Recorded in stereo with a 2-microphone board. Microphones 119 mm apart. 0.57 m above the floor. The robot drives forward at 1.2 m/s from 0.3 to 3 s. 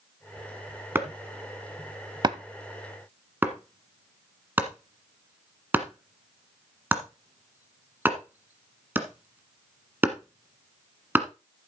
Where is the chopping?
20° right (ahead or behind), 1.2 m; by 11.3 s 15° right (ahead or behind), 1.4 m.